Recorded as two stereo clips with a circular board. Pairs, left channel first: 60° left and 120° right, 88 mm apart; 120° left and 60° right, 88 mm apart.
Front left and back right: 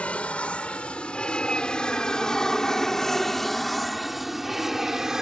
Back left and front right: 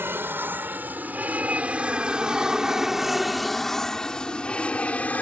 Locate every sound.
0.0 s an aircraft: 10° right; by 5.2 s 165° left